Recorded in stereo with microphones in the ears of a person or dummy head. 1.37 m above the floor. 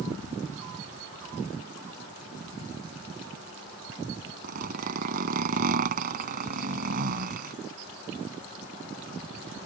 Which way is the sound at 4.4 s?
50° right (ahead or behind).